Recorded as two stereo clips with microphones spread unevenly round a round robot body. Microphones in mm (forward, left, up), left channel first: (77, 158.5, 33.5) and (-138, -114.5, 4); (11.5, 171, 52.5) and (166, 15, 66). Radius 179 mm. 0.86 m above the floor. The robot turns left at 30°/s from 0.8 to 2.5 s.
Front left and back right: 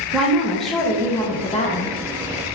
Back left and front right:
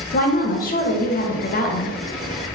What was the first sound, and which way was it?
A woman speaking, 145° left.